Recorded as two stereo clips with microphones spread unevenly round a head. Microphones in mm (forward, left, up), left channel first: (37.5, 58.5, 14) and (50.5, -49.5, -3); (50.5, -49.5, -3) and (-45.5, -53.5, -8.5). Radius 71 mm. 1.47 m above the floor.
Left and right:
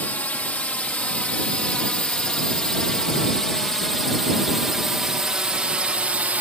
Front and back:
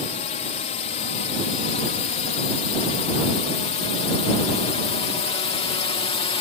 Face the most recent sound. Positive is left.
turn(degrees=-10)